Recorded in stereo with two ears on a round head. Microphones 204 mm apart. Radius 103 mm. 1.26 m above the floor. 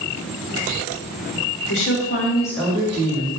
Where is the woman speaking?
60° left (ahead or behind), 0.8 m; by 3.3 s 35° right (ahead or behind), 0.9 m.